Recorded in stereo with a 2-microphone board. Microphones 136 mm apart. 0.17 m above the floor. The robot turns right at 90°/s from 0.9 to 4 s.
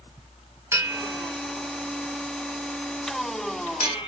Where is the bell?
20° right (ahead or behind), 0.6 m; by 4.1 s 45° left (ahead or behind), 0.6 m.